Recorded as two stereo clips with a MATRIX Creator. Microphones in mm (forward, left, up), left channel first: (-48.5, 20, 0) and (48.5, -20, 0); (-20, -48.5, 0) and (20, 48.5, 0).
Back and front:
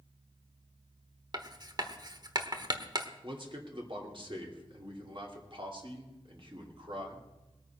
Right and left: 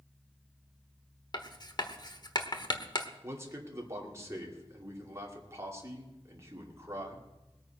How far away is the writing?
About 1.2 m.